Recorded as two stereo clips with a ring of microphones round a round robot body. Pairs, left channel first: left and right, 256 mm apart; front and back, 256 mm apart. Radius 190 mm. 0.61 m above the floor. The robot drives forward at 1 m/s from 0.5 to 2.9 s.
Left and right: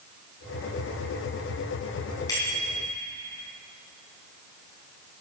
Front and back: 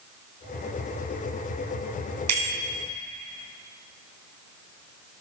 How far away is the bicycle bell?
About 5 m.